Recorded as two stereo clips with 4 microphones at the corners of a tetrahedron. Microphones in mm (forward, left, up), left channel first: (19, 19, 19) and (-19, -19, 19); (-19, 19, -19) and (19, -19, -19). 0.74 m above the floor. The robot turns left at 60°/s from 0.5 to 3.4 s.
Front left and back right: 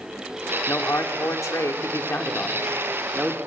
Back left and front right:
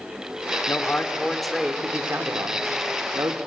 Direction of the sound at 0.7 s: 90° left.